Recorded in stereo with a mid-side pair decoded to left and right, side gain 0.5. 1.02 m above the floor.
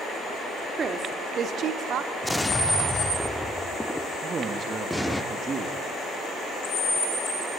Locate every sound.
0.8 s a woman speaking: 40° right, 2.5 m; by 2.1 s 70° right, 2 m
2.2 s an explosion: 5° left, 1.3 m
4.2 s a man speaking: 35° right, 2 m